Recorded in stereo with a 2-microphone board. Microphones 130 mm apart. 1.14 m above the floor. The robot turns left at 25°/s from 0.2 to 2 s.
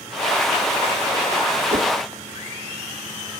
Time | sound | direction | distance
1.7 | a whoosh | 85° right | 1.0 m